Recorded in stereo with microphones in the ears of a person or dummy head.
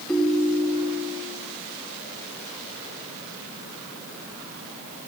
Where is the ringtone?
5° left (ahead or behind), 3.5 m.